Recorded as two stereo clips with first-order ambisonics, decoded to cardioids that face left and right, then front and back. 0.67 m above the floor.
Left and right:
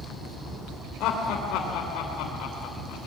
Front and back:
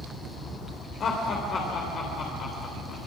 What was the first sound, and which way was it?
Laughter, 55° left.